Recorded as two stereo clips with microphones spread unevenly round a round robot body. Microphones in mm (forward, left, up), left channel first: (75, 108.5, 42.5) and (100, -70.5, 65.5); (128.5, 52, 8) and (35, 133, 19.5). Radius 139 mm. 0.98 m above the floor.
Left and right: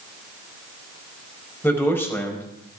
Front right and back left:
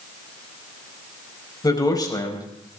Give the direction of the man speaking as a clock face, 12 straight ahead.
11 o'clock.